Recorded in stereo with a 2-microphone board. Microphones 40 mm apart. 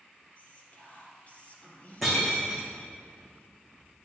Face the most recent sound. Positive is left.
turn(degrees=0)  # may be behind; listen again after turning